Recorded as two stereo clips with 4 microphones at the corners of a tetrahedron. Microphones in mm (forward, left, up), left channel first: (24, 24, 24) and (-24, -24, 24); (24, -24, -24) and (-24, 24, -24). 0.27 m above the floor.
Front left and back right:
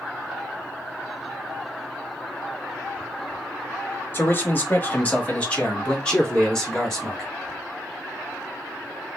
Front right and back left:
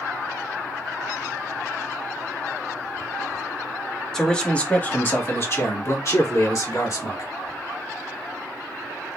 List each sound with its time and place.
4.1 s a man speaking: 30° left, 1.2 m; by 7.3 s 40° right, 2 m